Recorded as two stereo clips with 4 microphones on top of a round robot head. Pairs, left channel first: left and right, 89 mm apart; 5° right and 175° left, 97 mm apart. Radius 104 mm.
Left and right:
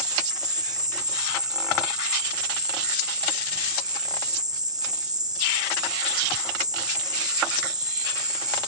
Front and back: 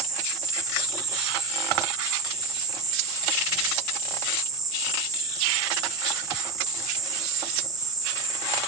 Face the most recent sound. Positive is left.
turn(degrees=-130)